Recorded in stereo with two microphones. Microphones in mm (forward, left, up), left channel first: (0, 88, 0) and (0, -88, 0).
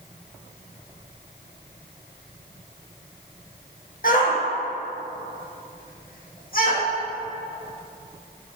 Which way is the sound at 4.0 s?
55° left (ahead or behind).